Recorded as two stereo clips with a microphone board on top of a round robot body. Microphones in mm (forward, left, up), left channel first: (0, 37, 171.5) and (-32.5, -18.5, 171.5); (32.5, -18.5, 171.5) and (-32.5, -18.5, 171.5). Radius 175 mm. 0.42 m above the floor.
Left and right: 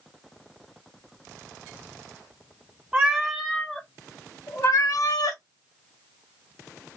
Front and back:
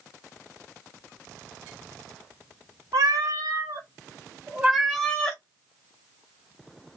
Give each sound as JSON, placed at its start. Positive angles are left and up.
{"t": 2.9, "sound": "a cat meowing", "azimuth_deg": 165, "distance_m": 1.1}